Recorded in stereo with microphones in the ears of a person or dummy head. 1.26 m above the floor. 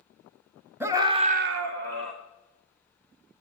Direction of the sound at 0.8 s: 5° right (ahead or behind).